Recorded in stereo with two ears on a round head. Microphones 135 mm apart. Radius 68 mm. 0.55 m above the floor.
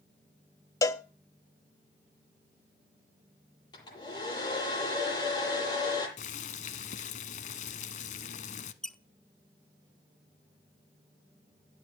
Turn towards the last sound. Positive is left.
turn(degrees=5)  # may be behind; listen again after turning